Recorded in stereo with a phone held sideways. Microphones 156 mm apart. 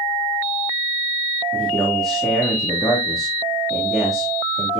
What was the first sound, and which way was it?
A man speaking, 5° left (ahead or behind).